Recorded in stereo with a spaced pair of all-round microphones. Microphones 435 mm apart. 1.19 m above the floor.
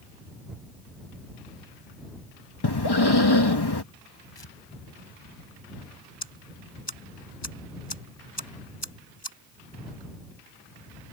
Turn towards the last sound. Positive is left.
turn(degrees=70)  # may be behind; listen again after turning